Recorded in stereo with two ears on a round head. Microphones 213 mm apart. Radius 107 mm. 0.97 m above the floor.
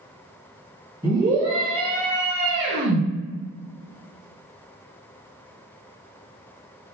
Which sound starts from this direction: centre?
A scream, at 1.0 s.